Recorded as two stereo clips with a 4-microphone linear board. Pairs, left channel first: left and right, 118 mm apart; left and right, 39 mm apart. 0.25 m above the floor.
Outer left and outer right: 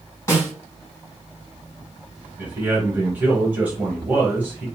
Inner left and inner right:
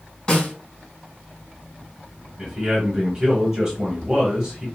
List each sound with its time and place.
0.3 s a snare drum: 25° left (ahead or behind), 2.5 m
2.4 s a man speaking: 15° right (ahead or behind), 1.1 m